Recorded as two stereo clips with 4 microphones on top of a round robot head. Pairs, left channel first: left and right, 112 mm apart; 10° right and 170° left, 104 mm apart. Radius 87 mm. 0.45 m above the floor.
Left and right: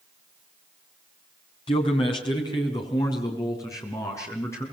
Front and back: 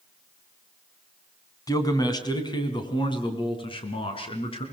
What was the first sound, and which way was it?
A man speaking, 45° left.